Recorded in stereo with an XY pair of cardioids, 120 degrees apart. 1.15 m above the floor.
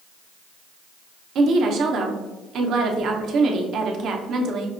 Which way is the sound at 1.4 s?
60° right.